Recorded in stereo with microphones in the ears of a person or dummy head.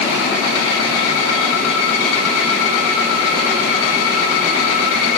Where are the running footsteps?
I don't hear running footsteps.